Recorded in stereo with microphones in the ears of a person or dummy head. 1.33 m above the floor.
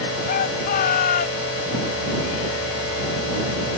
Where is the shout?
45° left (ahead or behind).